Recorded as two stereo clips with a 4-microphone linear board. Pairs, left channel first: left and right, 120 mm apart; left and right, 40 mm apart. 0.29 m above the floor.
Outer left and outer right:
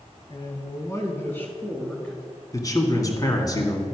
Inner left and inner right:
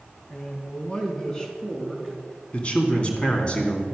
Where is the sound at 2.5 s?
30° left (ahead or behind), 2 m.